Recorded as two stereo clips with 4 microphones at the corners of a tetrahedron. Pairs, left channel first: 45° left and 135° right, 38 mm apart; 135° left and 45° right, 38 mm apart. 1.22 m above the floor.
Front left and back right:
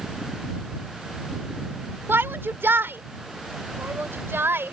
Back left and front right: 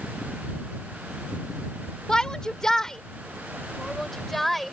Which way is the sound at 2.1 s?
155° right.